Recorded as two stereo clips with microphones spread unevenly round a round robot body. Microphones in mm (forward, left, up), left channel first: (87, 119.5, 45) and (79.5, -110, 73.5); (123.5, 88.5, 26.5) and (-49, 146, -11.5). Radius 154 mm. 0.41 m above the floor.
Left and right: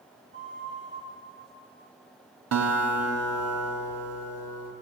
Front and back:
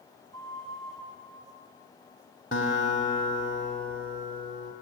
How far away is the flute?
About 5 m.